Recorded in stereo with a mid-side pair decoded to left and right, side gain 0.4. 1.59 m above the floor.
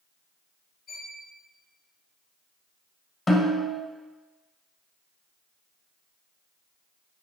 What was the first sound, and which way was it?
A violin, 55° left.